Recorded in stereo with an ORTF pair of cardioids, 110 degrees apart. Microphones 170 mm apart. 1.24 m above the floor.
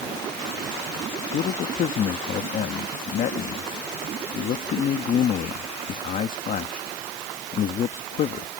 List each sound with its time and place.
1.3 s a man speaking: 55° left